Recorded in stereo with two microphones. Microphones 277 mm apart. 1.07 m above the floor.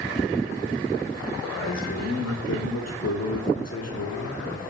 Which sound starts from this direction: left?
A man speaking, at 1.4 s.